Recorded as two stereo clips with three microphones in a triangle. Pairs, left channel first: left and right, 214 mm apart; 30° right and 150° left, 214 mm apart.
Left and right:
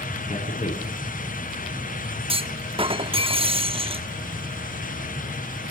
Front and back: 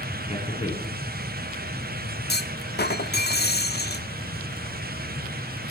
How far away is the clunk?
About 1.0 m.